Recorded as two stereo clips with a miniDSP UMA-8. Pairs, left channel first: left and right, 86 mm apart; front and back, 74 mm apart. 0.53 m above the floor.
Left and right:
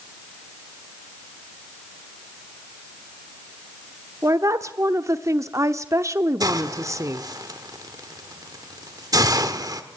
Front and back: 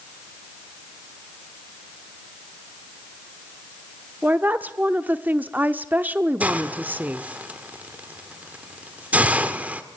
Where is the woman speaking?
120° right, 0.8 m.